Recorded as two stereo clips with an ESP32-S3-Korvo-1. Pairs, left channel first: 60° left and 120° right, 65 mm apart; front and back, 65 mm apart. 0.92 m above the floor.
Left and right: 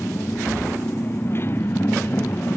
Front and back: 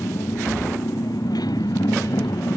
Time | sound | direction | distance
0.0 | a motorcycle | 5° left | ?